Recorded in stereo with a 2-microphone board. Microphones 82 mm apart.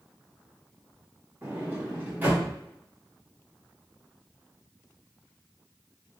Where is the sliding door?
20° right (ahead or behind), 1.8 m.